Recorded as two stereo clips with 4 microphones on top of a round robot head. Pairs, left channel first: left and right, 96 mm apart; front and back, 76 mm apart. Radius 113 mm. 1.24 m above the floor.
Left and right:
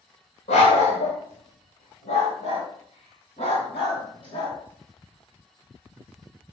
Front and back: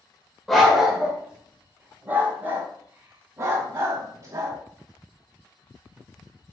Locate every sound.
0.5 s a dog barking: 90° left, 1.5 m; by 4.6 s 135° left, 3 m